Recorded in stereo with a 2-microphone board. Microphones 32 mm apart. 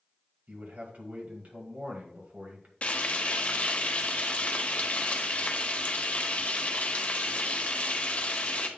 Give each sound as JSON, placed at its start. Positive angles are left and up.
{"t": 0.5, "sound": "a man speaking", "side_deg": -50, "distance_m": 1.9}
{"t": 2.8, "sound": "frying", "side_deg": 45, "distance_m": 0.9}